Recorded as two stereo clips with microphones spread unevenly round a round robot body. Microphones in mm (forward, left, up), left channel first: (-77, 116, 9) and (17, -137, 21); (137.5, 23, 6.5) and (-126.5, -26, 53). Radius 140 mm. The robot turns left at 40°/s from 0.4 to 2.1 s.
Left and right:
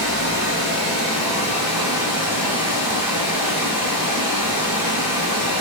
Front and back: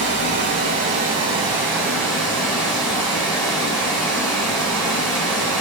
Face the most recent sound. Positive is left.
turn(degrees=90)